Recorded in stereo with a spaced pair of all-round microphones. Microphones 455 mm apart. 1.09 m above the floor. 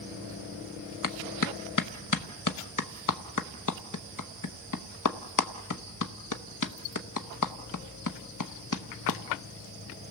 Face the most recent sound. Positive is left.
turn(degrees=45)  # may be behind; listen again after turning